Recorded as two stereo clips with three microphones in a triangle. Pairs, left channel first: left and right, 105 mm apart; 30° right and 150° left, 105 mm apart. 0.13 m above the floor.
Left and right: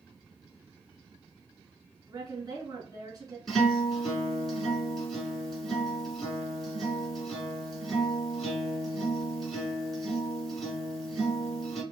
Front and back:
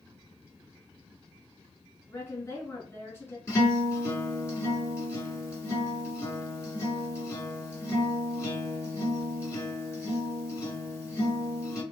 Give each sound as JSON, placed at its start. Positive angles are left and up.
{"t": 2.1, "sound": "a woman speaking", "azimuth_deg": -80, "distance_m": 1.3}
{"t": 3.5, "sound": "a guitar", "azimuth_deg": 0, "distance_m": 1.8}